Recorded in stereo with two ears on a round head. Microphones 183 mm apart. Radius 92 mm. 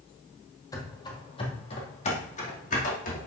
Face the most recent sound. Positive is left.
turn(degrees=45)  # may be behind; listen again after turning